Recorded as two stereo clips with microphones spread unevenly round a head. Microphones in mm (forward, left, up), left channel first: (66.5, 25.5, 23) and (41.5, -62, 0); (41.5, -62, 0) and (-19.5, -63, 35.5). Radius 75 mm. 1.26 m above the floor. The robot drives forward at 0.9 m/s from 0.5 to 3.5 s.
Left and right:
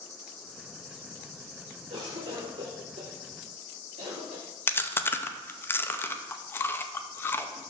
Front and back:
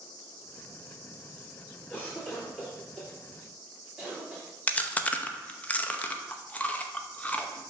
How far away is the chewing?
About 0.7 m.